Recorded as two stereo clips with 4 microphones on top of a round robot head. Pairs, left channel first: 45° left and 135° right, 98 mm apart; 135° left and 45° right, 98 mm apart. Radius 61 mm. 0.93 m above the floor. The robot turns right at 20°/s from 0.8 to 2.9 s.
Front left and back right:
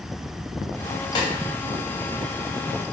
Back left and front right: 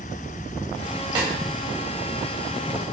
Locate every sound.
1.1 s a snare drum: straight ahead, 3 m; by 1.3 s 5° left, 3 m